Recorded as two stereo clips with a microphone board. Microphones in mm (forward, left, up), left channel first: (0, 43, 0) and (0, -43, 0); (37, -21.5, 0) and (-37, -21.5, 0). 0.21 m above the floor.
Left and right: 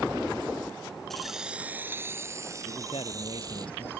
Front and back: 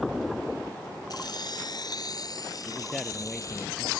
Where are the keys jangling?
5° left; by 3.7 s 45° right.